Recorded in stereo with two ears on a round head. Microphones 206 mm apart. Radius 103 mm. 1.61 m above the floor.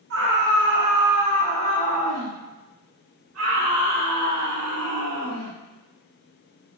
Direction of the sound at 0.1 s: 55° right (ahead or behind).